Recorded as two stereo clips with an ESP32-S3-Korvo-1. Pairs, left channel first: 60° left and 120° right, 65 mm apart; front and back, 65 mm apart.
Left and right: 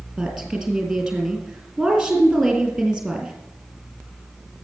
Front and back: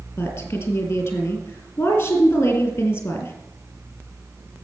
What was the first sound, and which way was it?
A woman speaking, 35° right.